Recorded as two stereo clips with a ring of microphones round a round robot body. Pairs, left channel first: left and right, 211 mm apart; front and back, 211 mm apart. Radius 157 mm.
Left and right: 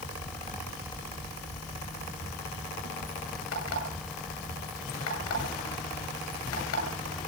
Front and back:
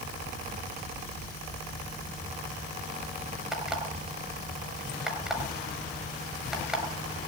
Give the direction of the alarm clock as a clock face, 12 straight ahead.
9 o'clock.